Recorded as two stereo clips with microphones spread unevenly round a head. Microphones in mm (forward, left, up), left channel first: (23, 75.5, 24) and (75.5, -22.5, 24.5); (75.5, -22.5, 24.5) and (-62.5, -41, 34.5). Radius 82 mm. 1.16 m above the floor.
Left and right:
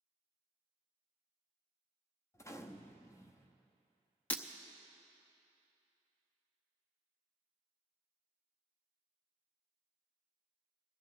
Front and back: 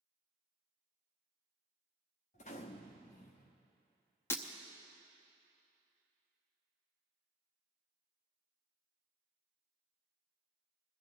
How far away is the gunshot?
About 0.8 m.